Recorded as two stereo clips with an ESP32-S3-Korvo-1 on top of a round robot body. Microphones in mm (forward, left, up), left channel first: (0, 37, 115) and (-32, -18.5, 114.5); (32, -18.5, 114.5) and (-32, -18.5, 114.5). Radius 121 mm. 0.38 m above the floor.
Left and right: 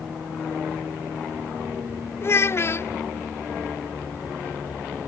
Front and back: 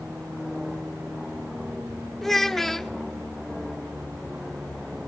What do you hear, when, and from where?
2.2 s a child speaking: 85° left, 1.0 m